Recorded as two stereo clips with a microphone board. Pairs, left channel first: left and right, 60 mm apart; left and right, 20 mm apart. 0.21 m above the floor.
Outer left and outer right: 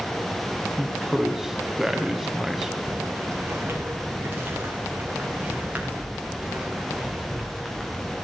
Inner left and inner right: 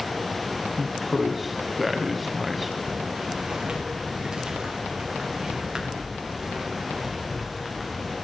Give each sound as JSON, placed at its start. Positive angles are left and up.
{"t": 0.8, "sound": "a man speaking", "side_deg": -5, "distance_m": 1.1}
{"t": 2.9, "sound": "footsteps", "side_deg": -40, "distance_m": 4.5}